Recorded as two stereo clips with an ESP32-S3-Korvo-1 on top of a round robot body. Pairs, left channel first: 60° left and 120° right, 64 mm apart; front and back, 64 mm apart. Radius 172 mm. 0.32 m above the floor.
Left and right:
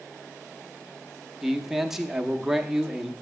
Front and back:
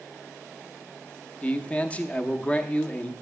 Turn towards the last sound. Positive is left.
turn(degrees=-45)